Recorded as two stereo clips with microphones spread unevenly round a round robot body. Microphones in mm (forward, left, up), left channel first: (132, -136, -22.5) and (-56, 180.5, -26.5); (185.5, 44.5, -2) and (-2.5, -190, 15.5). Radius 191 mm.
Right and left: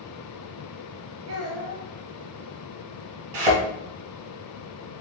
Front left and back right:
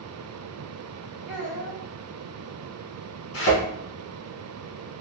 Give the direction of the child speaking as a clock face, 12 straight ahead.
7 o'clock.